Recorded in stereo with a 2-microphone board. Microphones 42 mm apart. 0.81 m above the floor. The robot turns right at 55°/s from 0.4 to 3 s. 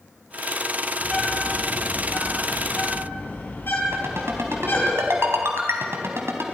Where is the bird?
10° left (ahead or behind), 8 m; by 4.9 s 60° left (ahead or behind), 8 m.